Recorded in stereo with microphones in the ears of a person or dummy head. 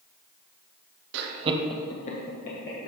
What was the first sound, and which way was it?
Laughter, 65° right (ahead or behind).